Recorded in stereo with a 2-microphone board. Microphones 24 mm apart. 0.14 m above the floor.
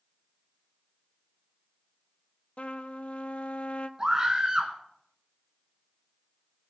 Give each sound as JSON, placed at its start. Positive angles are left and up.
{"t": 2.6, "sound": "a trumpet", "side_deg": 65, "distance_m": 0.6}
{"t": 4.0, "sound": "a scream", "side_deg": -30, "distance_m": 1.3}